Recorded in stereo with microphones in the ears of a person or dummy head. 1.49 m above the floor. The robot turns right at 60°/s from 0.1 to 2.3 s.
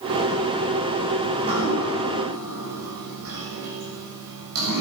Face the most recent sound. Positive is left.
turn(degrees=-95)